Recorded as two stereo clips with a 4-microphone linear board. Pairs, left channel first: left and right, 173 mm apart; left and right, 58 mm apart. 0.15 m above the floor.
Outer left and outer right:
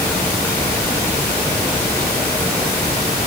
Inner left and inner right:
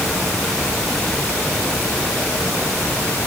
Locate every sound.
Only background noise.